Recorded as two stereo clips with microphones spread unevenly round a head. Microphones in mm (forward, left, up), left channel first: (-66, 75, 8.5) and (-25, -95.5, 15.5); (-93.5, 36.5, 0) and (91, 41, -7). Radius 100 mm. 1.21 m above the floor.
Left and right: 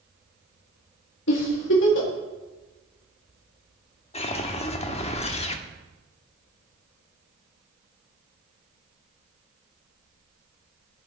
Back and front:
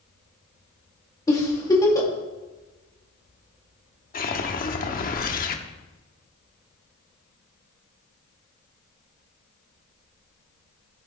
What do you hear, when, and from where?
1.3 s a giggle: 110° left, 2.5 m
4.1 s a whoosh: 155° left, 1.1 m